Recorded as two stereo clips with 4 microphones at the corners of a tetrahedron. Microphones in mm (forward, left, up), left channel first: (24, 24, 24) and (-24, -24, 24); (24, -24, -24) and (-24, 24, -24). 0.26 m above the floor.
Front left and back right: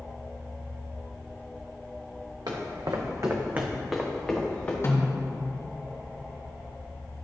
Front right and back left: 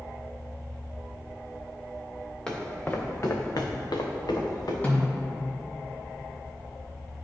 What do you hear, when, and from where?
2.5 s footsteps: 125° right, 1.5 m; by 4.7 s 20° right, 1.7 m
4.8 s a snare drum: 15° left, 2 m